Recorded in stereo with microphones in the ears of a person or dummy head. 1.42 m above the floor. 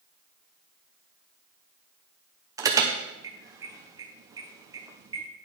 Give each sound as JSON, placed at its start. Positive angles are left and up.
{"t": 2.6, "sound": "an alarm", "side_deg": -20, "distance_m": 0.8}